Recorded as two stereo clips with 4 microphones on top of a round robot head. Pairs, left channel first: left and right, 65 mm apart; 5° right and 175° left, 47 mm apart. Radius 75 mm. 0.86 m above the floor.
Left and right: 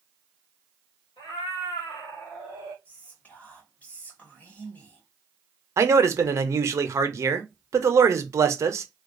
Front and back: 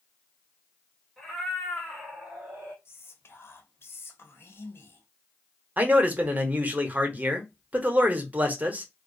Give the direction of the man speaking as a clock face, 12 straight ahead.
4 o'clock.